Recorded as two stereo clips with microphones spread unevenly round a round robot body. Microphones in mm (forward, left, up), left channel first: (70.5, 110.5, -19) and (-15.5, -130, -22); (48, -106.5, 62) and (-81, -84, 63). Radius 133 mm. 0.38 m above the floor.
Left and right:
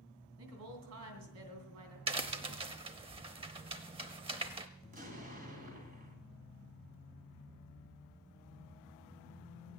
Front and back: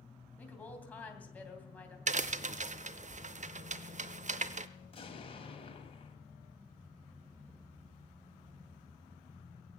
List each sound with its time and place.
0.4 s a woman speaking: 90° right, 3 m
2.1 s a crack: straight behind, 0.6 m
4.8 s an explosion: 50° right, 2.5 m